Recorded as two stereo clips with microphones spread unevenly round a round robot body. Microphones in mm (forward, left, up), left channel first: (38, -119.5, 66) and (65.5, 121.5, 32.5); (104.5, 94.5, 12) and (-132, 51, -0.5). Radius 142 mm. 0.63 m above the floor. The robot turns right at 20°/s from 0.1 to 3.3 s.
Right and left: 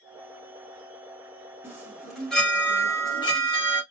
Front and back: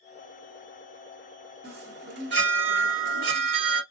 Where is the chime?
160° left, 1.7 m; by 3.8 s 170° right, 1.7 m.